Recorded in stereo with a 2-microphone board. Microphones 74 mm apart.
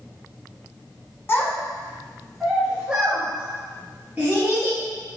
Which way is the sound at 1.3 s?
35° left (ahead or behind).